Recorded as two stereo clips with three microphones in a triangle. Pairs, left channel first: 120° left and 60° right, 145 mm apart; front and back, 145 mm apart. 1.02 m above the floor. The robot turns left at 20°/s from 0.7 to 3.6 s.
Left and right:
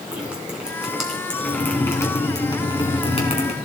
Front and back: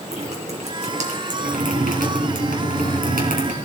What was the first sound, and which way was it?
Dripping, 145° right.